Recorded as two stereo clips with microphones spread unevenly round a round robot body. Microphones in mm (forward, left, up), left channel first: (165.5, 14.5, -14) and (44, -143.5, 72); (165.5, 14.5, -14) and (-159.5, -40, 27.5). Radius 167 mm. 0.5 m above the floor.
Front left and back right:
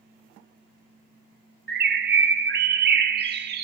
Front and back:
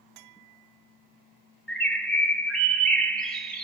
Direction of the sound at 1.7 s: 75° right.